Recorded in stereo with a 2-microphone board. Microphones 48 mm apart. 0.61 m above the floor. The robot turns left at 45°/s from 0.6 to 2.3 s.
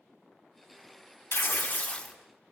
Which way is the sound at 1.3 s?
55° left.